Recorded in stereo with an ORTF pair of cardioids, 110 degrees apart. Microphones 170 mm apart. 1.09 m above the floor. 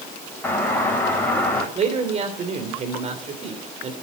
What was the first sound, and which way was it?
A doorbell, 10° left.